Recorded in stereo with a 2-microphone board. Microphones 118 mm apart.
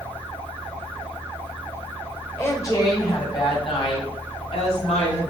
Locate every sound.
2.4 s a woman speaking: 20° left (ahead or behind), 1.9 m; by 5.3 s 60° left (ahead or behind), 3.5 m